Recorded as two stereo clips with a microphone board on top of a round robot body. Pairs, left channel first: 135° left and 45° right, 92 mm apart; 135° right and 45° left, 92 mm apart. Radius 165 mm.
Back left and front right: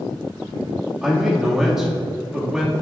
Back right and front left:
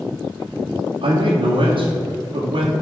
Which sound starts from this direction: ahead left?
A man speaking, at 1.0 s.